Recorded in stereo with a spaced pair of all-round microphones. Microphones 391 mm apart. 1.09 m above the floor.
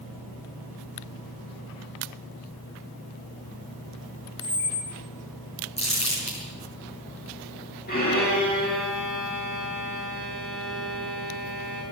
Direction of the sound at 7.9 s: 25° left (ahead or behind).